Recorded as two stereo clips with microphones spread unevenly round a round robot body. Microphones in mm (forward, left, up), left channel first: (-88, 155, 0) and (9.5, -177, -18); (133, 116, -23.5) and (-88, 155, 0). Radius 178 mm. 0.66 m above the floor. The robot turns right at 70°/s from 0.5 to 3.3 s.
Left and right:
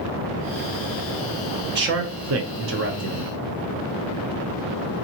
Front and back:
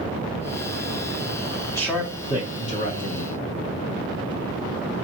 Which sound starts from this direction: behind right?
A man speaking, at 1.7 s.